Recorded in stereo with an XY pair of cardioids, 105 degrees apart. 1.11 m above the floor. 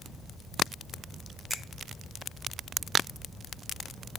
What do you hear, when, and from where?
1.5 s a finger snap: 25° right, 1.1 m